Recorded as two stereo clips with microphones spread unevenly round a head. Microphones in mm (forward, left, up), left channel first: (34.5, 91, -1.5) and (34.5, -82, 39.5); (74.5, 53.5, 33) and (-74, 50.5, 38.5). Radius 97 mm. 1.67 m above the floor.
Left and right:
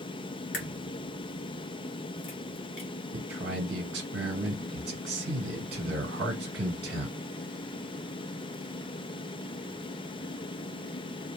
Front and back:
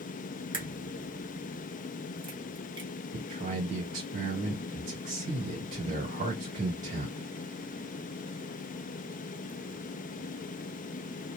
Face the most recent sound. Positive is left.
turn(degrees=-130)